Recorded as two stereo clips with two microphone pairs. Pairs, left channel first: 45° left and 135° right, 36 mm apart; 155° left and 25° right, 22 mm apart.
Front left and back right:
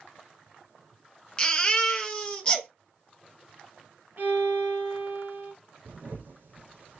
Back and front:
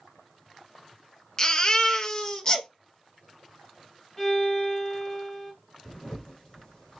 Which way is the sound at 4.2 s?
130° right.